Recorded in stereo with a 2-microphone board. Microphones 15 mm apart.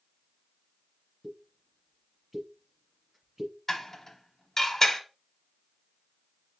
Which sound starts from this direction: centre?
A pop, at 1.2 s.